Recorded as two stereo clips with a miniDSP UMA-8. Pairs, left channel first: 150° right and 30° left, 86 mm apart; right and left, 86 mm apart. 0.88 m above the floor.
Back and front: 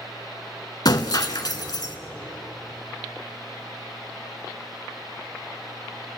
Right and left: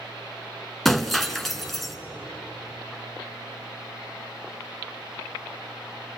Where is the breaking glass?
175° right, 1.3 m.